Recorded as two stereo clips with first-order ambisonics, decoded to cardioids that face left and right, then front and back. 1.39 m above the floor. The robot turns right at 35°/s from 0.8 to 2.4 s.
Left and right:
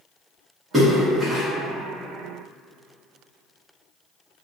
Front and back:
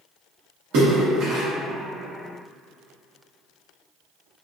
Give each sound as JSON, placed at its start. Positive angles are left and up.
{"t": 0.7, "sound": "a splash", "azimuth_deg": -165, "distance_m": 1.1}